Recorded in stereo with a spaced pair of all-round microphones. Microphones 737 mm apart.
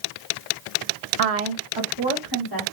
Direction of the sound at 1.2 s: 60° right (ahead or behind).